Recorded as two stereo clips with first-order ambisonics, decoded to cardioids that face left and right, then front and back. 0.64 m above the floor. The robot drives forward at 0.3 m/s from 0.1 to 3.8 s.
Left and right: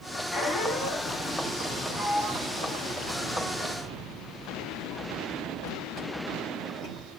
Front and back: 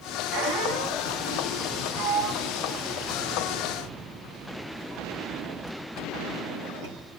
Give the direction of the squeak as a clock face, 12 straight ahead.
6 o'clock.